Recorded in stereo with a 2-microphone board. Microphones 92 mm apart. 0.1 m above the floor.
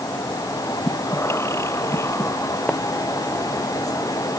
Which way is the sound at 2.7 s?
10° left (ahead or behind).